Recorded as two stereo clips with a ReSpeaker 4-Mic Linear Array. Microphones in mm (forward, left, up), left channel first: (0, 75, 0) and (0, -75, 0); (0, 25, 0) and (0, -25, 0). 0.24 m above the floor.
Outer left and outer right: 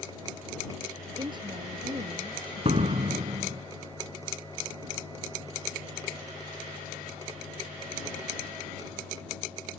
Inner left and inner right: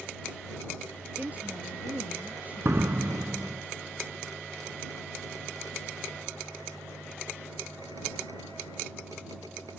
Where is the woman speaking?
30° right (ahead or behind); by 3.0 s 35° right (ahead or behind).